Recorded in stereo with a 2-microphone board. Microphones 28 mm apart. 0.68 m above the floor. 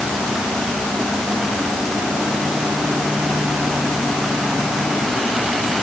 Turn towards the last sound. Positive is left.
No sound to turn to.